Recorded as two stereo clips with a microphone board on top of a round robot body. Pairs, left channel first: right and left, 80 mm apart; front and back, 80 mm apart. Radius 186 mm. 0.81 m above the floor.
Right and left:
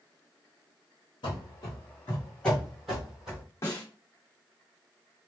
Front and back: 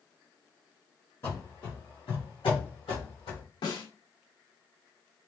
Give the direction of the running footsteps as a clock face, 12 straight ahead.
2 o'clock.